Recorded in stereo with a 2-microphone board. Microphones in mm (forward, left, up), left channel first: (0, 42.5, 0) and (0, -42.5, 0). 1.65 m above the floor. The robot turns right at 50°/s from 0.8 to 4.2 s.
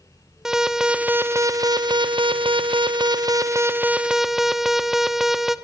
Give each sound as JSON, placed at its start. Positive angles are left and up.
{"t": 0.5, "sound": "an alarm", "azimuth_deg": -175, "distance_m": 0.9}